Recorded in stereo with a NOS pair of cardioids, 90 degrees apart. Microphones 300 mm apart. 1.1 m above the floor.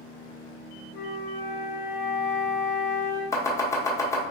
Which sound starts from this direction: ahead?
Chopping, at 3.3 s.